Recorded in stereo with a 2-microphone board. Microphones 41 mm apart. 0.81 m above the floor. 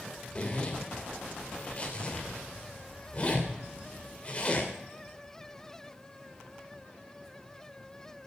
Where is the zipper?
30° left (ahead or behind), 2.5 m.